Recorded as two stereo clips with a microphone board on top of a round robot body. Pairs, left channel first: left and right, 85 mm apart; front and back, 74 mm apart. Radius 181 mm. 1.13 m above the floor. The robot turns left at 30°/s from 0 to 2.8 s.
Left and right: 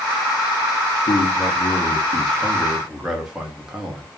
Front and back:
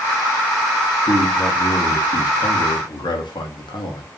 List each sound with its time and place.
1.1 s a man speaking: 45° left, 1.1 m; by 4.1 s 5° right, 1.1 m